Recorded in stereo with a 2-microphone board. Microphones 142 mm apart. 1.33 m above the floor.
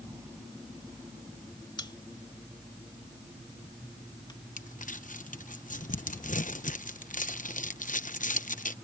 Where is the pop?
30° left (ahead or behind).